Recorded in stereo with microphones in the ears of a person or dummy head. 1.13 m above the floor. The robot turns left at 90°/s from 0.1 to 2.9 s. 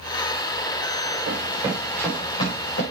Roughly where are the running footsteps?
Right.